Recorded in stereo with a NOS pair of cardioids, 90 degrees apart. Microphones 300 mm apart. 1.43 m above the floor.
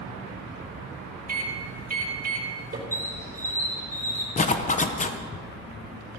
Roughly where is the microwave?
Ahead right.